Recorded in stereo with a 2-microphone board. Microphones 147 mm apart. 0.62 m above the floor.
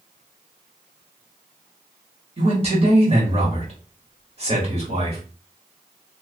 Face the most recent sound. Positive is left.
turn(degrees=-40)  # may be behind; listen again after turning